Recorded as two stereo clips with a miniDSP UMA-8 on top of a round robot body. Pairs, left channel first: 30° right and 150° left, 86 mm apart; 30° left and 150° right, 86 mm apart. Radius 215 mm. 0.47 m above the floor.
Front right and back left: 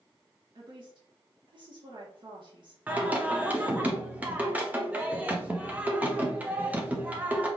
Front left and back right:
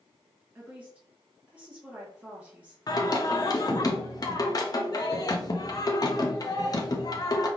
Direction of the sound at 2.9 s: 75° left.